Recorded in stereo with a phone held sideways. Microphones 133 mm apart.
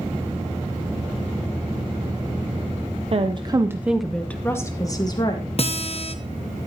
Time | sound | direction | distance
3.1 | a woman speaking | 50° right (ahead or behind) | 0.8 m
5.6 | a guitar | 50° left (ahead or behind) | 0.9 m